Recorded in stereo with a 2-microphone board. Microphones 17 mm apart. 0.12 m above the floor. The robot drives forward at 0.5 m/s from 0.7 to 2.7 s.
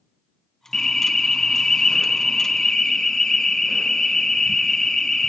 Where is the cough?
No cough in this recording.